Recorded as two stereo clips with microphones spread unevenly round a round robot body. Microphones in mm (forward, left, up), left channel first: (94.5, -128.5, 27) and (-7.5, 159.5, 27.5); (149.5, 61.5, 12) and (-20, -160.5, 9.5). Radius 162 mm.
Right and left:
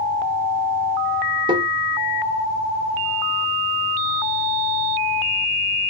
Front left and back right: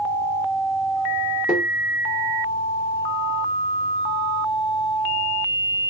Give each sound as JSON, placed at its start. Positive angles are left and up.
{"t": 1.5, "sound": "tapping", "azimuth_deg": 150, "distance_m": 0.7}